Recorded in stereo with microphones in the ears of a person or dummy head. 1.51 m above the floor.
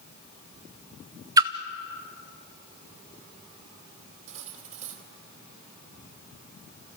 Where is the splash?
25° right (ahead or behind), 0.8 m.